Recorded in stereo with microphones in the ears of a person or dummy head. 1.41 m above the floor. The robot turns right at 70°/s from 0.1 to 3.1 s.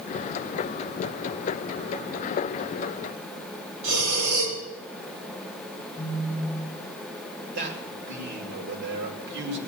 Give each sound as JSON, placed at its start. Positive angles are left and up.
{"t": 3.8, "sound": "breathing", "side_deg": -70, "distance_m": 4.5}
{"t": 6.0, "sound": "a phone buzzing", "side_deg": 25, "distance_m": 1.0}
{"t": 7.5, "sound": "a man speaking", "side_deg": -55, "distance_m": 5.0}